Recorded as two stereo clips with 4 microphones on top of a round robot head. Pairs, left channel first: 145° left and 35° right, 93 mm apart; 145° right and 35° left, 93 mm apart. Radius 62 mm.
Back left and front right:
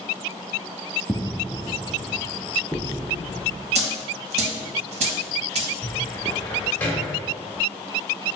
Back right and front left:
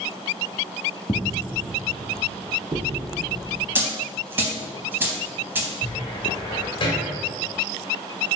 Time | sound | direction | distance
1.1 | footsteps | 150° right | 0.5 m
3.8 | a dropped coin | 35° right | 0.8 m
5.8 | a cupboard door | 145° right | 1.3 m